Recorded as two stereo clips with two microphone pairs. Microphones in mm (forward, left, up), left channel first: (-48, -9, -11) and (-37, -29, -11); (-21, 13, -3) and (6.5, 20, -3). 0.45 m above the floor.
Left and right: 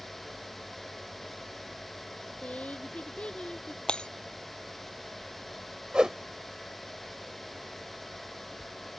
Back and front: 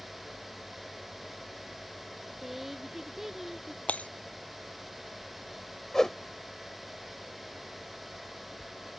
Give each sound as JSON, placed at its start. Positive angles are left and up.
{"t": 2.4, "sound": "a woman speaking", "azimuth_deg": 95}
{"t": 3.9, "sound": "breaking glass", "azimuth_deg": 160}
{"t": 5.9, "sound": "a whoosh", "azimuth_deg": -95}